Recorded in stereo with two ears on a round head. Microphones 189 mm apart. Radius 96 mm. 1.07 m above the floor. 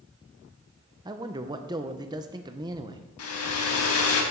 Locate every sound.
1.1 s a man speaking: 20° right (ahead or behind), 0.6 m
3.2 s a hair dryer: 85° left, 1.8 m